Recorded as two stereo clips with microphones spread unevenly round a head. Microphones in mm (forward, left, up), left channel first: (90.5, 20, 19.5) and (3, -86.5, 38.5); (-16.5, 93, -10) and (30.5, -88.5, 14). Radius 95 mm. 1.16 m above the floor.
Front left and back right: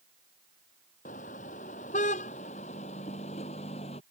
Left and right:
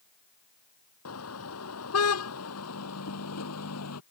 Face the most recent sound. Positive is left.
turn(degrees=110)